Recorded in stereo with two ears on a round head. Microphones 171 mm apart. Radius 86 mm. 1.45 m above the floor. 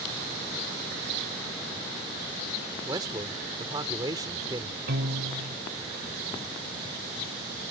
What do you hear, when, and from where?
2.9 s a man speaking: 20° right (ahead or behind)
4.9 s a piano: 60° right (ahead or behind)